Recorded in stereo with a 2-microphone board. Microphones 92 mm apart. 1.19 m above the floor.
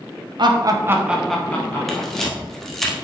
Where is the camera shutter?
5° left (ahead or behind), 1.5 m.